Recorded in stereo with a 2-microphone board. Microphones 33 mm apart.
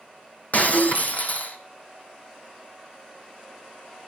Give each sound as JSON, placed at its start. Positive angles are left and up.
{"t": 0.5, "sound": "breaking glass", "side_deg": 55, "distance_m": 1.3}